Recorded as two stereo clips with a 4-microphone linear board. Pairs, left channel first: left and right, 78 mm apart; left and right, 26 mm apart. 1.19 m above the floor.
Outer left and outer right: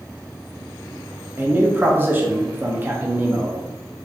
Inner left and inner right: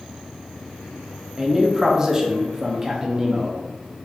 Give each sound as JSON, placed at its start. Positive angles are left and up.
{"t": 1.4, "sound": "a man speaking", "side_deg": -25, "distance_m": 1.0}